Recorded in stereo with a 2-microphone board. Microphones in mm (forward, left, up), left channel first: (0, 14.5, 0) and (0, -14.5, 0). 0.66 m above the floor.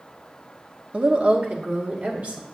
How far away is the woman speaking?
About 0.9 m.